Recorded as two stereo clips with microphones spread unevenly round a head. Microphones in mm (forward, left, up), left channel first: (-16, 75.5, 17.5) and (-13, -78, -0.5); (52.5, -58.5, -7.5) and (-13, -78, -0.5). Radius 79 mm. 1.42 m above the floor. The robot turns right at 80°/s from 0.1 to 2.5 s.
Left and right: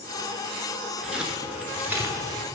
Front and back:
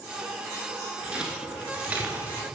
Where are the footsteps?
175° left, 1.4 m; by 2.4 s 140° right, 1.6 m.